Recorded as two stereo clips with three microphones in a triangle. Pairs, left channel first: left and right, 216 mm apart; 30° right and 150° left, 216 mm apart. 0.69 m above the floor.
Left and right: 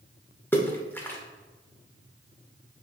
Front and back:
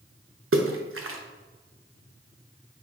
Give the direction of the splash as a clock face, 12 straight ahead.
6 o'clock.